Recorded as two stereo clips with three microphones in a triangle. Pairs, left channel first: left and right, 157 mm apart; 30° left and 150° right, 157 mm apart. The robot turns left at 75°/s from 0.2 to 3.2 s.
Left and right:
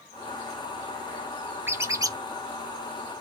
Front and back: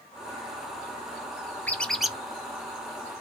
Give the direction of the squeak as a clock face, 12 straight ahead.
1 o'clock.